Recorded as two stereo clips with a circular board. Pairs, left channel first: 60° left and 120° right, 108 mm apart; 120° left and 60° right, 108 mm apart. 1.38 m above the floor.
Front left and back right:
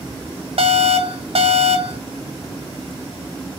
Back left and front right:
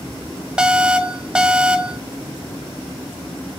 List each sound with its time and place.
0.6 s an alarm: 140° right, 2 m